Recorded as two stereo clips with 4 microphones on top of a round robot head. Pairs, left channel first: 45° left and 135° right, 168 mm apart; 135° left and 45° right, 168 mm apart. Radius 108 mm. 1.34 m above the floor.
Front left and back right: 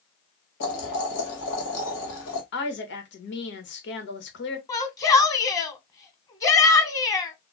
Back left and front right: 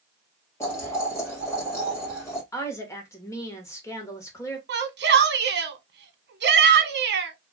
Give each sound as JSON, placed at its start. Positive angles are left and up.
{"t": 0.6, "sound": "boiling", "azimuth_deg": 60, "distance_m": 1.7}
{"t": 2.5, "sound": "a woman speaking", "azimuth_deg": 60, "distance_m": 1.5}
{"t": 4.7, "sound": "a shout", "azimuth_deg": -25, "distance_m": 1.1}